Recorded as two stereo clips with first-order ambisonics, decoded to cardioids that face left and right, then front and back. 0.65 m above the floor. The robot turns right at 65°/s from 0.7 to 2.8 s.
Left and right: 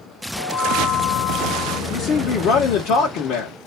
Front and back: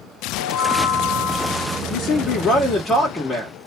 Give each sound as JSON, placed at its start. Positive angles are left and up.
{"t": 0.4, "sound": "a chime", "azimuth_deg": 25, "distance_m": 1.2}
{"t": 1.9, "sound": "a man speaking", "azimuth_deg": 20, "distance_m": 0.8}